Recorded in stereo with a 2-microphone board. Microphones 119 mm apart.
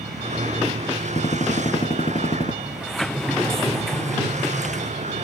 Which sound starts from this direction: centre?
A sliding door, at 2.6 s.